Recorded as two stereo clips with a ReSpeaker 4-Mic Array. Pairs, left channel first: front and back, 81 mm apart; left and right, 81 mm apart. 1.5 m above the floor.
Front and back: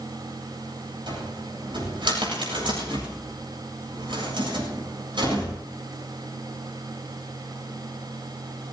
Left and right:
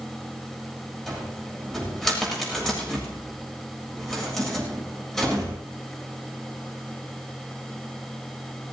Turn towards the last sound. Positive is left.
turn(degrees=175)